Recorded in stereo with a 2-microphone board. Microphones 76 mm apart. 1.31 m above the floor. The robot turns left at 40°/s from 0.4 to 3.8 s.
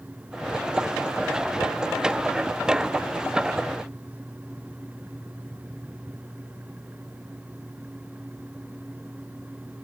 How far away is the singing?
I don't hear singing.